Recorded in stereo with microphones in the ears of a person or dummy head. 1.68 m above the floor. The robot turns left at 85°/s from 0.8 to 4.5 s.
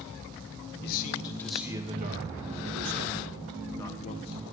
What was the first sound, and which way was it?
A man speaking, 60° left.